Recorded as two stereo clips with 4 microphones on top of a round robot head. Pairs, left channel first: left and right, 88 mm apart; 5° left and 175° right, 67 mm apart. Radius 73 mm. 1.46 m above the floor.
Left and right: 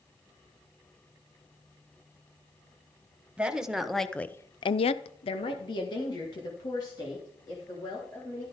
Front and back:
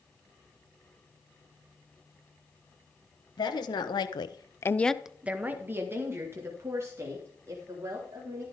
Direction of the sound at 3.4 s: 10° right.